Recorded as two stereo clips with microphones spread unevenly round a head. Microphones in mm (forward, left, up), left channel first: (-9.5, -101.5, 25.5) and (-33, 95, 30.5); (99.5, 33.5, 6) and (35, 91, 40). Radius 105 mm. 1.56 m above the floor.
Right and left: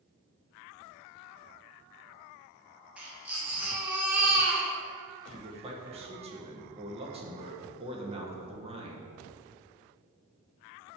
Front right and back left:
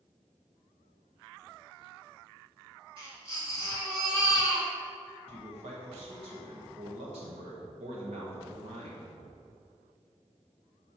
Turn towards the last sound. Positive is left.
turn(degrees=160)